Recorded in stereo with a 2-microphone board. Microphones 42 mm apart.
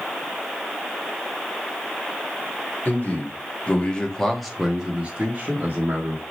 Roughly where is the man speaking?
Left.